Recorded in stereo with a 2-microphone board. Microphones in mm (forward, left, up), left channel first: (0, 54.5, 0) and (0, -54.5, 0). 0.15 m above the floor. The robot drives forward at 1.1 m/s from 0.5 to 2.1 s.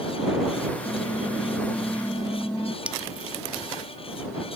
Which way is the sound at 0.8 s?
10° left (ahead or behind).